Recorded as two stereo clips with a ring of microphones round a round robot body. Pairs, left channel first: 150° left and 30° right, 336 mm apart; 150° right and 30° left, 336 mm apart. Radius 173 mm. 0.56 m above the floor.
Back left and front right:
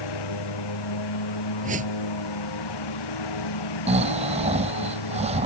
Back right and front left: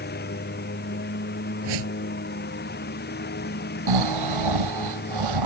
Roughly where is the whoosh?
Ahead left.